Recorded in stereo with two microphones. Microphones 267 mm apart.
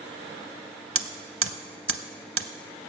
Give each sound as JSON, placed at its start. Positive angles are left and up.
{"t": 0.9, "sound": "hammering", "side_deg": -50, "distance_m": 0.6}